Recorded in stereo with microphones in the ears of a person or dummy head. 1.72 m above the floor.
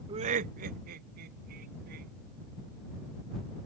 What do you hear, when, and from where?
0.1 s laughter: 25° right (ahead or behind); by 2.1 s 55° right (ahead or behind)